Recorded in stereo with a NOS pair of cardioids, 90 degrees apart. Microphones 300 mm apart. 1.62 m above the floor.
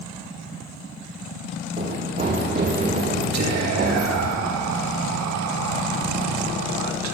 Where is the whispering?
65° right, 2 m.